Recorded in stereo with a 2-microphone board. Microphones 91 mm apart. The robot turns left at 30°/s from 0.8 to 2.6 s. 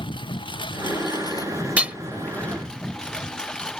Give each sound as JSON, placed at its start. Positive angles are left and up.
{"t": 0.0, "sound": "a lawn mower", "azimuth_deg": 60}
{"t": 1.8, "sound": "hammering", "side_deg": -15}